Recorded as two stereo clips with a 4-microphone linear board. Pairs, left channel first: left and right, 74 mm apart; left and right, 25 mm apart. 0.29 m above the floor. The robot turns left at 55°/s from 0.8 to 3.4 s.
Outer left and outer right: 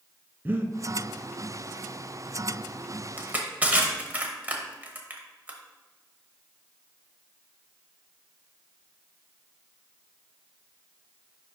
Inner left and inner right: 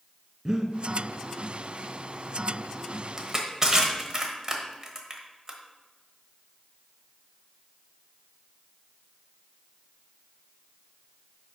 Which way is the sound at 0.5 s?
25° right (ahead or behind).